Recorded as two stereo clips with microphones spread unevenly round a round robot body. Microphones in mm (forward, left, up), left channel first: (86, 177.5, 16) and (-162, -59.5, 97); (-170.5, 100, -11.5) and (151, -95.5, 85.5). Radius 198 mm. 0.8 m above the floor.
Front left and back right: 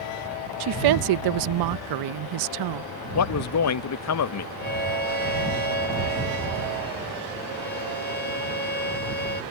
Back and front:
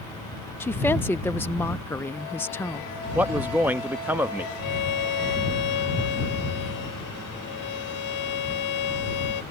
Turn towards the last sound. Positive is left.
turn(degrees=105)